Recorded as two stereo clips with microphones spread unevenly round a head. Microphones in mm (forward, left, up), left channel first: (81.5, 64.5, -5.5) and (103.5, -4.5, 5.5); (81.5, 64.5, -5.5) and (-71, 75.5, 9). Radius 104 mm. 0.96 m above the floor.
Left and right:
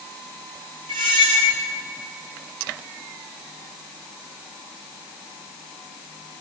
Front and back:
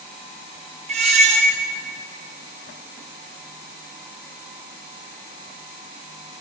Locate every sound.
0.9 s a squeak: 120° right, 0.6 m